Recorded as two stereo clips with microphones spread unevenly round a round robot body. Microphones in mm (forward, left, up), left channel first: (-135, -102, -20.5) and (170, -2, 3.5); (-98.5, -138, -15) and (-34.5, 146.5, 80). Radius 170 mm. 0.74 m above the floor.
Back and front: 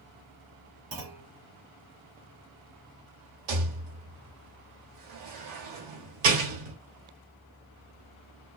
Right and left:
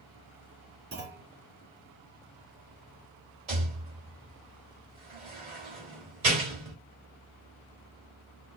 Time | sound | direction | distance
0.9 | a clunk | 25° left | 1.3 m
3.5 | a rattle | 5° left | 1.3 m